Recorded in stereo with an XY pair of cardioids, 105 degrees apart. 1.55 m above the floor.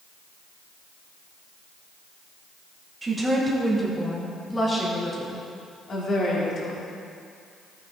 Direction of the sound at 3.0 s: 25° right.